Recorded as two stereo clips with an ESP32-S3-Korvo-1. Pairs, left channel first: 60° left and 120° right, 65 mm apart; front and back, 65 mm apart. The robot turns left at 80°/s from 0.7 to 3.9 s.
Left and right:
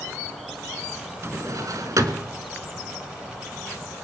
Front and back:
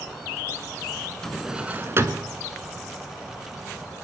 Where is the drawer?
80° right, 1.3 m; by 2.3 s 165° right, 1.3 m.